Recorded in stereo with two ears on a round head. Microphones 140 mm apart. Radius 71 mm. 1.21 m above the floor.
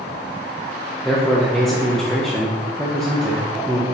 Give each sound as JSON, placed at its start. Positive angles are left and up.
{"t": 1.0, "sound": "a man speaking", "side_deg": 5, "distance_m": 0.6}